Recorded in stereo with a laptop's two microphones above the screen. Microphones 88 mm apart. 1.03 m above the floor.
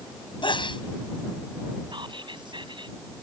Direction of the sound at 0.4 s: 65° left (ahead or behind).